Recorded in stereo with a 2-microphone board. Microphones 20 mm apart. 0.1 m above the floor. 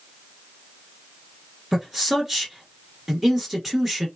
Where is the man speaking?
10° right (ahead or behind), 1.6 m.